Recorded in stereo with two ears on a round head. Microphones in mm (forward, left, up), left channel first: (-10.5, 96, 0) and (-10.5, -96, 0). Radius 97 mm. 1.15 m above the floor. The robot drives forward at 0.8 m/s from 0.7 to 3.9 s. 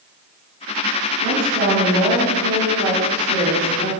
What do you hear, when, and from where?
1.2 s a woman speaking: 85° right, 3.5 m; by 3.9 s 55° right (ahead or behind), 4.5 m